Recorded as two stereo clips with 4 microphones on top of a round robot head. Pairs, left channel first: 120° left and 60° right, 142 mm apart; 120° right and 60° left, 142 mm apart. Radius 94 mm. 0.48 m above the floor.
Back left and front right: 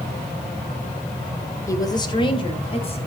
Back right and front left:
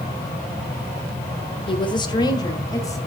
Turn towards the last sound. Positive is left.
turn(degrees=170)